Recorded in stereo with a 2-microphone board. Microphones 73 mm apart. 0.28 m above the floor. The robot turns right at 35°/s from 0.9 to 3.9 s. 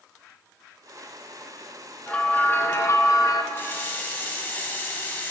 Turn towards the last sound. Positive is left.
turn(degrees=30)  # may be behind; listen again after turning